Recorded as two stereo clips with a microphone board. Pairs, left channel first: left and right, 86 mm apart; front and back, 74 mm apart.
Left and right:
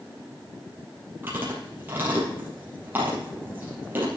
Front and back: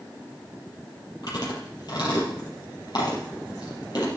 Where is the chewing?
20° right, 4.5 m.